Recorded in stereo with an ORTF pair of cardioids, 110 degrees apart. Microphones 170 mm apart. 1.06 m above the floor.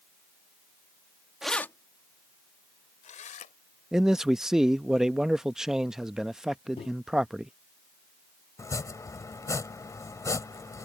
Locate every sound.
1.4 s keys jangling: 5° right; by 3.5 s 50° left
3.9 s a man speaking: 5° right
6.8 s a microwave: 35° left
8.6 s chopping: 20° left